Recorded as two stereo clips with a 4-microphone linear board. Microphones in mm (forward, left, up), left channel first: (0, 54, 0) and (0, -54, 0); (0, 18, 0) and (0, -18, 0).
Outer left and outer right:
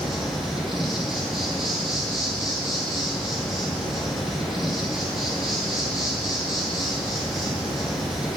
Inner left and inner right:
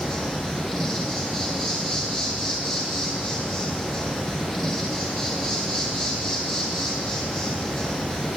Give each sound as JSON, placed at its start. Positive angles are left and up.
{"t": 0.0, "sound": "an insect", "side_deg": 0, "distance_m": 5.5}